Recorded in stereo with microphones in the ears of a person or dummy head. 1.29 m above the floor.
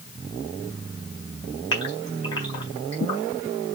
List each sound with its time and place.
1.7 s a gasp: 25° left (ahead or behind), 3.5 m